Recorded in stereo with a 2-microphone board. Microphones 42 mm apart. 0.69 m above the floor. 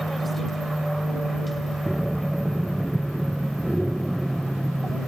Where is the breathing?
5° right (ahead or behind).